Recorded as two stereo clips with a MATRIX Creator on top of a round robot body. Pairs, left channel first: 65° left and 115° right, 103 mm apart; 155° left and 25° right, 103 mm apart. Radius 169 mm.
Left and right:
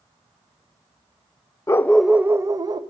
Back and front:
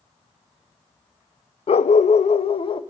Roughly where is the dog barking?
Behind left.